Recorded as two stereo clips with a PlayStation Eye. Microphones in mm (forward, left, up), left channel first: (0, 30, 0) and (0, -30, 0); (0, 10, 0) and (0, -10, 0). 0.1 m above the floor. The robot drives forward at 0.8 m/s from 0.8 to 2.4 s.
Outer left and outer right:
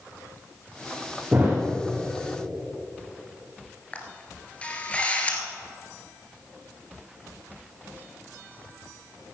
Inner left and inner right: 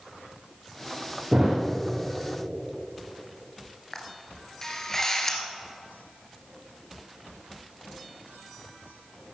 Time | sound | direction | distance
1.3 | a thud | 25° right (ahead or behind) | 4.5 m
3.9 | a camera shutter | 20° left (ahead or behind) | 1.7 m